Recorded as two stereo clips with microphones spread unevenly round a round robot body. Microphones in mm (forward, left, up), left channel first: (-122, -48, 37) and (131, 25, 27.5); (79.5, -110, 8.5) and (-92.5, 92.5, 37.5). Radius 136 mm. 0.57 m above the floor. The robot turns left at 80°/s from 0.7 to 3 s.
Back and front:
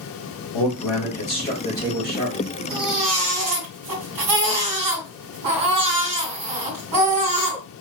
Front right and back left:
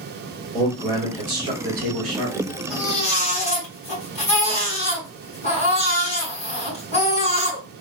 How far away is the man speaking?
About 1.6 m.